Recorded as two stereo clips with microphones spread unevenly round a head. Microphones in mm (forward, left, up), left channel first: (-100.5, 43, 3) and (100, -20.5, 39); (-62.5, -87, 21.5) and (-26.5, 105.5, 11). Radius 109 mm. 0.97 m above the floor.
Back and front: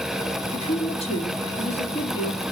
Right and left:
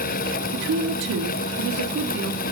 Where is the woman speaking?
100° left, 2.5 m.